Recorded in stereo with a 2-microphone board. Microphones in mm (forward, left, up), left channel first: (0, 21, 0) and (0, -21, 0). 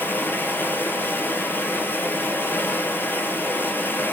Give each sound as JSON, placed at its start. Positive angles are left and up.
{"t": 0.0, "sound": "running water", "side_deg": 55, "distance_m": 0.9}